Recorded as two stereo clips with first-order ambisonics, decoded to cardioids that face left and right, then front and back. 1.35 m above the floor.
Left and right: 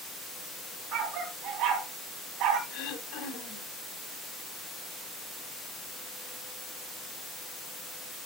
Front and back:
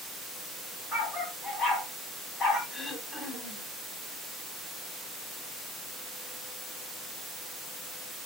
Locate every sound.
0.9 s a dog barking: 60° right, 3 m
2.7 s throat clearing: 60° left, 3.5 m